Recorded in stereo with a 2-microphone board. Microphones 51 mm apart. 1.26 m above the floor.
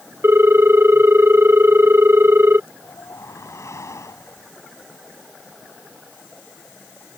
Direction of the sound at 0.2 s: 50° right (ahead or behind).